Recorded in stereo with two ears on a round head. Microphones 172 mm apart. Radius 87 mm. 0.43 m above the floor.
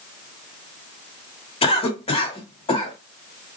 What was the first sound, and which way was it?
A cough, 30° left (ahead or behind).